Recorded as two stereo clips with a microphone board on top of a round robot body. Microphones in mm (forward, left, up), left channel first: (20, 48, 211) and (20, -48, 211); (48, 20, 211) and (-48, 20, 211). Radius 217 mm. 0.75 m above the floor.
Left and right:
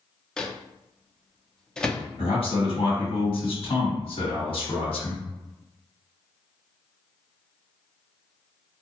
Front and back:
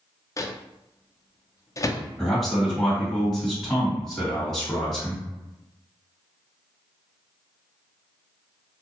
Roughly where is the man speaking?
Left.